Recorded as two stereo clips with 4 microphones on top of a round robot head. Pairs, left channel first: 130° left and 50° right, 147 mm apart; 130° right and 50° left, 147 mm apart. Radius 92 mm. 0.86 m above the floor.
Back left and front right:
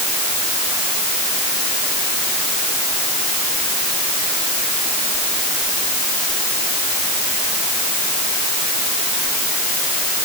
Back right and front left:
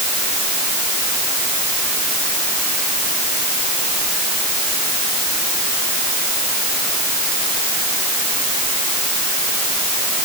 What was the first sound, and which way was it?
Only background noise.